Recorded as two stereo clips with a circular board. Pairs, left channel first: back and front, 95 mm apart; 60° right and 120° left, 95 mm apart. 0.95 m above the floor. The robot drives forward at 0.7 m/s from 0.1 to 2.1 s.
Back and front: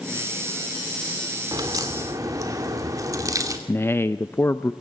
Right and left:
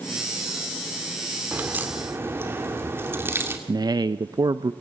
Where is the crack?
45° left, 2.5 m; by 3.6 s 55° left, 2.5 m.